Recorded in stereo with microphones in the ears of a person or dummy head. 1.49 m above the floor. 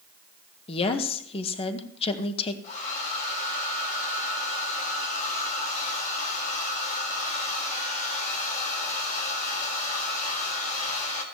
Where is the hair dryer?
45° left (ahead or behind), 3.5 m.